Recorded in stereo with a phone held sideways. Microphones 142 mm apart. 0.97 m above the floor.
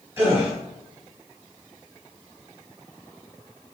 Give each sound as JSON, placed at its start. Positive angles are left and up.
{"t": 0.2, "sound": "a gasp", "side_deg": -15, "distance_m": 1.5}